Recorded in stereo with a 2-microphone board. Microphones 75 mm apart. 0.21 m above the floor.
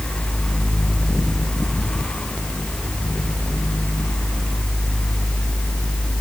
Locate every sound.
Only background noise.